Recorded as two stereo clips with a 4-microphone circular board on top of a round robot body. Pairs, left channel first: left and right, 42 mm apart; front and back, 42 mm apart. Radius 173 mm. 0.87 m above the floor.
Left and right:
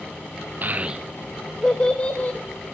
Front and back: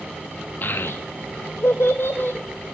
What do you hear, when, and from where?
0.6 s a child speaking: 45° right, 0.5 m; by 2.4 s 40° left, 0.9 m